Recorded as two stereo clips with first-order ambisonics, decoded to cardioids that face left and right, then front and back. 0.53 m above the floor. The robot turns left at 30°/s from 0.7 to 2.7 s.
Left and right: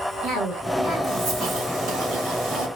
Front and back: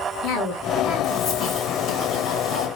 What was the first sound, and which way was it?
A cough, 30° right.